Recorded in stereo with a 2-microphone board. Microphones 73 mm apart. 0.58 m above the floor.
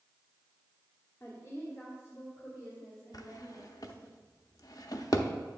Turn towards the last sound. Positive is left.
turn(degrees=55)  # may be behind; listen again after turning